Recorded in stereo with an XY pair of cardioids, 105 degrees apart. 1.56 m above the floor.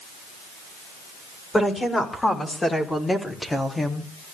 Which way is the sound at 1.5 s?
20° left.